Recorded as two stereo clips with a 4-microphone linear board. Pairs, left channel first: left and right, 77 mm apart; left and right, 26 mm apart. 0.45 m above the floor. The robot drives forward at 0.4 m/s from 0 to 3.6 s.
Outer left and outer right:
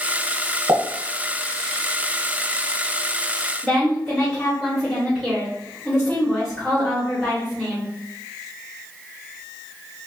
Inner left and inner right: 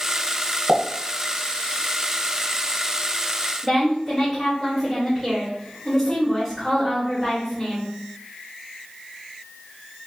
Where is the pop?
45° right (ahead or behind), 0.9 m; by 0.8 s 50° right (ahead or behind), 0.9 m.